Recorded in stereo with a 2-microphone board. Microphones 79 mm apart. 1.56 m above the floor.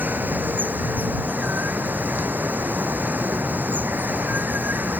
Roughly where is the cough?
No cough in this recording.